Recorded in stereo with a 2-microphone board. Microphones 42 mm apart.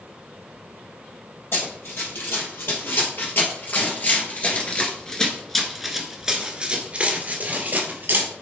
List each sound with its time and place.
1.5 s running footsteps: 65° left (ahead or behind), 3.5 m; by 8.3 s 50° right (ahead or behind), 2.5 m